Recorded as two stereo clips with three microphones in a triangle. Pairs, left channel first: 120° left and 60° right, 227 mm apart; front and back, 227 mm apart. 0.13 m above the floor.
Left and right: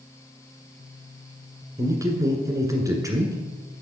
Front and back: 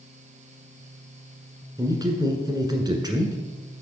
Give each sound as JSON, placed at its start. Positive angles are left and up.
{"t": 1.8, "sound": "a man speaking", "azimuth_deg": -120, "distance_m": 1.3}